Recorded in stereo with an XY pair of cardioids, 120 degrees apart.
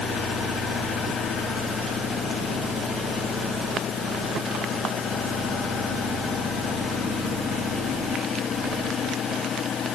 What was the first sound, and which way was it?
Only background noise.